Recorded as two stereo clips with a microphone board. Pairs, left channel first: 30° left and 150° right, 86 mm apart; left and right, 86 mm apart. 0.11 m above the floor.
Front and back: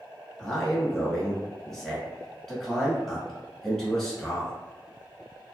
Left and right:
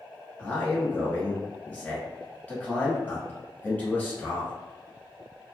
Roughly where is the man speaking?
Left.